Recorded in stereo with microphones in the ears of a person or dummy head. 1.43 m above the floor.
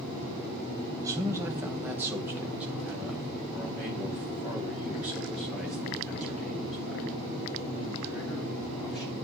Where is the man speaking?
20° right (ahead or behind), 1.2 m; by 9.1 s 5° right (ahead or behind), 5.5 m.